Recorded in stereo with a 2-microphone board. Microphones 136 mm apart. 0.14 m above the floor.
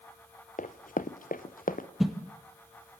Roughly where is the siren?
I don't hear a siren.